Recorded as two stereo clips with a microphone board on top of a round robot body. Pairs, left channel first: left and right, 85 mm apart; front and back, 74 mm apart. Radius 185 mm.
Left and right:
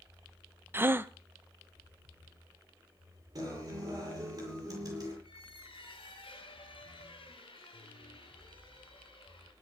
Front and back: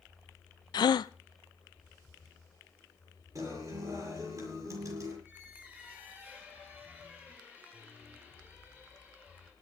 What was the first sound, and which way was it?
A gasp, 25° right.